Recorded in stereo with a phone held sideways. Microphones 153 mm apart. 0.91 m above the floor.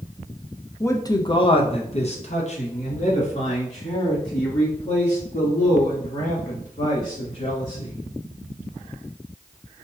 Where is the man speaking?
15° left (ahead or behind), 0.6 m; by 8.0 s 50° left (ahead or behind), 3.5 m.